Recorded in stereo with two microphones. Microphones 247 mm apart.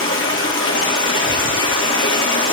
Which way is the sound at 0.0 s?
55° left (ahead or behind).